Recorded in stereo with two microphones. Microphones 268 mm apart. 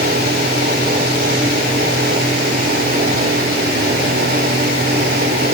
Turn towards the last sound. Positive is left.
No sound to turn to.